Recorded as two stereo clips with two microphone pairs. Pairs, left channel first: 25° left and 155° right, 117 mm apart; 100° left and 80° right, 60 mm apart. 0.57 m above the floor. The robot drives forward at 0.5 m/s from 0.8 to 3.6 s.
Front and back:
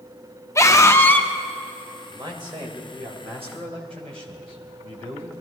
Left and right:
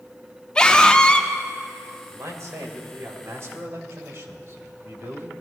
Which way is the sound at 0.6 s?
45° left.